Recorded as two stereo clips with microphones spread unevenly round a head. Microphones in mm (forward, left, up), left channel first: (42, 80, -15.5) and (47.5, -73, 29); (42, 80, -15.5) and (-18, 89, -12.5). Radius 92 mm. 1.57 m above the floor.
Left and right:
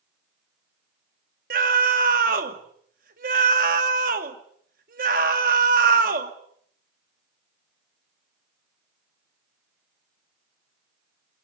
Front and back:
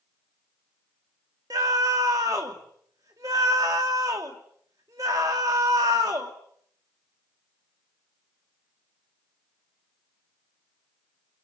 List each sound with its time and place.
1.5 s a scream: 130° right, 2.5 m